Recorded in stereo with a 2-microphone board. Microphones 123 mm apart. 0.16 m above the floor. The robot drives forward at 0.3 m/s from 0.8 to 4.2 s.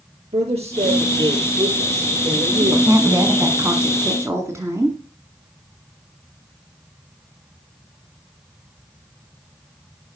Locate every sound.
0.3 s a man speaking: 60° right (ahead or behind), 5 m; by 3.6 s 65° right (ahead or behind), 4.5 m
2.6 s a woman speaking: 25° right (ahead or behind), 1.3 m